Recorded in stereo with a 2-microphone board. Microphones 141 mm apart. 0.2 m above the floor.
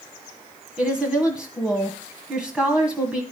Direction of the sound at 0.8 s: 5° right (ahead or behind).